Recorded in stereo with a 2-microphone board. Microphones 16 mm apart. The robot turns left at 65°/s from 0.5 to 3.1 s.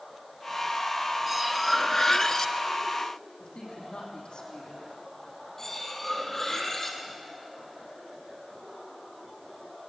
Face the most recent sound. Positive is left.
turn(degrees=20)  # may be behind; listen again after turning